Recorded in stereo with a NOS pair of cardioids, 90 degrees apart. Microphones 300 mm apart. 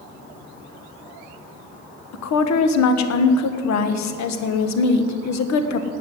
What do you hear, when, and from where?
2.1 s a woman speaking: 65° left, 1.5 m